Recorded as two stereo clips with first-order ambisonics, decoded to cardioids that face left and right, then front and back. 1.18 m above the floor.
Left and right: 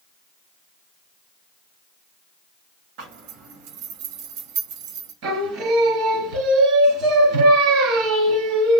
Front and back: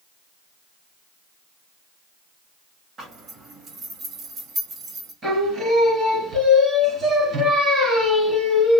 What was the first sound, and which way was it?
A zipper, 110° right.